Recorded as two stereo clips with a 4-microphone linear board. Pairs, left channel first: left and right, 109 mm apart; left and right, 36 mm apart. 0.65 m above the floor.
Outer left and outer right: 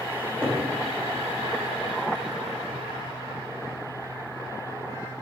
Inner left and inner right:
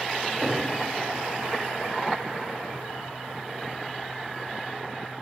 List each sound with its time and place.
0.2 s a cupboard door: 20° left (ahead or behind), 2.5 m